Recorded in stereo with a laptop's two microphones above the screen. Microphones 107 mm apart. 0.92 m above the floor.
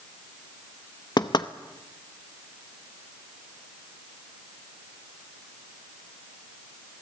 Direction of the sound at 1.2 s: 45° left (ahead or behind).